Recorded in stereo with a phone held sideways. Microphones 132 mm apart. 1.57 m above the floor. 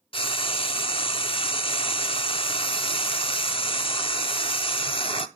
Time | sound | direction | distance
0.1 | frying | 45° left (ahead or behind) | 0.5 m